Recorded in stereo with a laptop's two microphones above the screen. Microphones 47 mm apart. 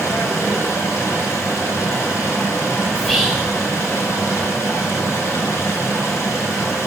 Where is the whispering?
10° left (ahead or behind), 2.5 m.